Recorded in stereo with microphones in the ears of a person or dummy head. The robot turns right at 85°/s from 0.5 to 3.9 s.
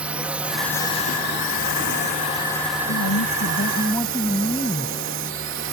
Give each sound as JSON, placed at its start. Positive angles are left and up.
{"t": 0.0, "sound": "a drone", "azimuth_deg": -10}
{"t": 2.9, "sound": "a woman speaking", "azimuth_deg": 80}